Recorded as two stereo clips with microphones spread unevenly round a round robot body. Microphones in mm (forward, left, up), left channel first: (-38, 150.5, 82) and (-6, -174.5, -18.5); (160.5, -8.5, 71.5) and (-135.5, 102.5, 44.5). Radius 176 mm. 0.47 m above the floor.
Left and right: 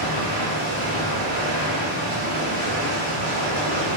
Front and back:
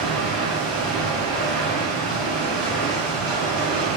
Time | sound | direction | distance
0.0 | running water | 115° right | 0.8 m